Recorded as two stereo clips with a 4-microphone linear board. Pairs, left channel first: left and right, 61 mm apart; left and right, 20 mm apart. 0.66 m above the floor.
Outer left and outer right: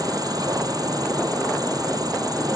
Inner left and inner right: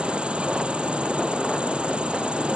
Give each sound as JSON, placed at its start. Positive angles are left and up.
{"t": 0.0, "sound": "an insect", "side_deg": -80}